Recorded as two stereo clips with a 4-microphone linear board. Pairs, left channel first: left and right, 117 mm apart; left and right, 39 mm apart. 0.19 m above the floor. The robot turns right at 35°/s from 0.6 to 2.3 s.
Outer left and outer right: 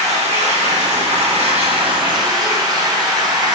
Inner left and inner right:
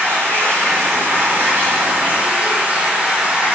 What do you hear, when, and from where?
0.0 s running water: 95° right, 1.1 m; by 3.6 s 35° right, 1.1 m